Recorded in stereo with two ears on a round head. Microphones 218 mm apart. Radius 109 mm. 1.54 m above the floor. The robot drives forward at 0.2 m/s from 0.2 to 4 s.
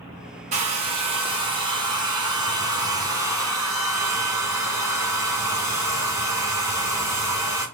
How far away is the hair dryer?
About 0.6 m.